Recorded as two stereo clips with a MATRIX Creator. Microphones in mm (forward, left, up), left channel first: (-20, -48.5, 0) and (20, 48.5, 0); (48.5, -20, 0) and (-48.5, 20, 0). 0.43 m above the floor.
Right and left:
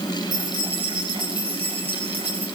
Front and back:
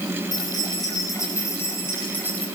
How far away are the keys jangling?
About 6.5 m.